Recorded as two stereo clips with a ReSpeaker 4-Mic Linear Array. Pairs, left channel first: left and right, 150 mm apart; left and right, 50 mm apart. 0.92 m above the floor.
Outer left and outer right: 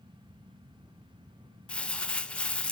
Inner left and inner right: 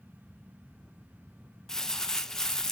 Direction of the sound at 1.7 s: 5° left (ahead or behind).